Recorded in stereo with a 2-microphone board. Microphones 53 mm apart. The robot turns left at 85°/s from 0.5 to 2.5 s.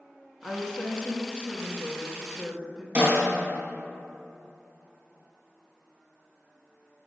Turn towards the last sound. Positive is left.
turn(degrees=-30)  # may be behind; listen again after turning